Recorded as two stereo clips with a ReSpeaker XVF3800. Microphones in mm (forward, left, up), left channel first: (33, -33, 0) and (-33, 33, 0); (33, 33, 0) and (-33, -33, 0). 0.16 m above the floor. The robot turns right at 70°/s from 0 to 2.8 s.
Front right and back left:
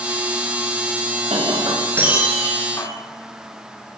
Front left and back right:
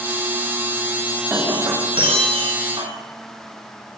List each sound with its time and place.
1.3 s breaking glass: 150° left, 10 m; by 2.9 s 105° right, 10 m